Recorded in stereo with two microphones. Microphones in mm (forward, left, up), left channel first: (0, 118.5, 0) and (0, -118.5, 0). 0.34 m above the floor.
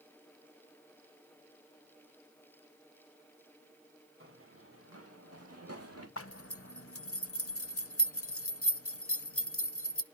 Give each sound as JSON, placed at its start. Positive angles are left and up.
{"t": 4.2, "sound": "running footsteps", "side_deg": -60, "distance_m": 3.5}
{"t": 6.2, "sound": "a zipper", "side_deg": 65, "distance_m": 0.8}